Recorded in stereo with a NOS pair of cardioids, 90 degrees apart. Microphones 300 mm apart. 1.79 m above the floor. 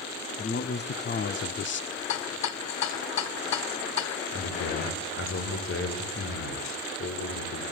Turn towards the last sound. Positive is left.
turn(degrees=45)